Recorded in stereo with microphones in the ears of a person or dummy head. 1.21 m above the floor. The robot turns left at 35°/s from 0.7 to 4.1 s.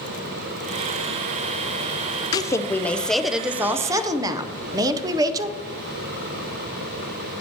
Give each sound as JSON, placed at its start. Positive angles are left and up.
{"t": 2.3, "sound": "a woman speaking", "azimuth_deg": 35, "distance_m": 0.6}